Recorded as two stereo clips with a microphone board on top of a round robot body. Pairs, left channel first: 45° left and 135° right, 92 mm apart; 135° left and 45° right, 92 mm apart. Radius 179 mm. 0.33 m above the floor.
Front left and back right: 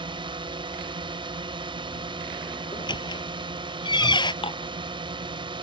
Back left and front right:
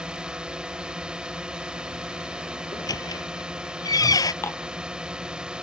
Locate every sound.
0.0 s a drone: 125° right
2.7 s a squeak: 85° left
4.4 s dishes clattering: 70° left